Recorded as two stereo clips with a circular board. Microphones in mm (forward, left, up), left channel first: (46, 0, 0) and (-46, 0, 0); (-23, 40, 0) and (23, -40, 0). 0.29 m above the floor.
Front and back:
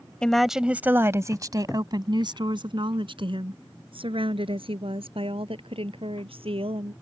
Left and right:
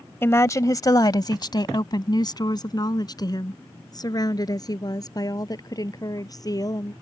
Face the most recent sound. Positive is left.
turn(degrees=170)